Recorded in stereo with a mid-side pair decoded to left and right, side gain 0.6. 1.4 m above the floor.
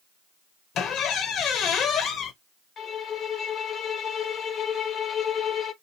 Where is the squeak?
55° left, 0.9 m.